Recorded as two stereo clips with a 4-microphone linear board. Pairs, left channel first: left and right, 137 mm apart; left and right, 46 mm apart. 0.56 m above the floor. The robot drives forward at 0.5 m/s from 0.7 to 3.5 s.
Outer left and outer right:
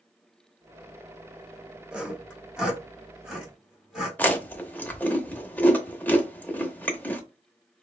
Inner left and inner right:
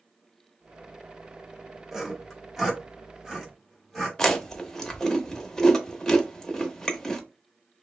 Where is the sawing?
5° right (ahead or behind), 0.8 m.